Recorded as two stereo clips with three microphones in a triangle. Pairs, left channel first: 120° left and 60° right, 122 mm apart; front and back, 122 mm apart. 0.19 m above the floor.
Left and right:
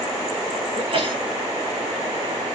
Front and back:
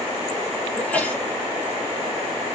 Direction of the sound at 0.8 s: 75° right.